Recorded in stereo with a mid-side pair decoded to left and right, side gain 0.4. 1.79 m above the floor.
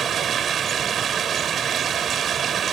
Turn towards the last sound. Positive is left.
turn(degrees=-60)